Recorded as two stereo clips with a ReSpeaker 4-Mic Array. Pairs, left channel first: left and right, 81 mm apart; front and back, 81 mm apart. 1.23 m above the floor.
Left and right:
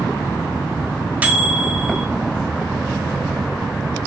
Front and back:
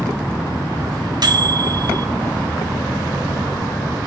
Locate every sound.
1.2 s a microwave: 160° right, 0.6 m